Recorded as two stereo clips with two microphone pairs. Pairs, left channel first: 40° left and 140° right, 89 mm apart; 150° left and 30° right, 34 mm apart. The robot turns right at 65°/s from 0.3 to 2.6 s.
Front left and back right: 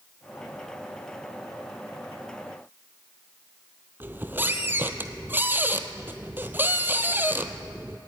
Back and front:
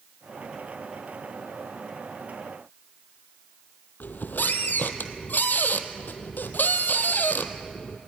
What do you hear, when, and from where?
4.0 s a squeak: 155° left, 1.2 m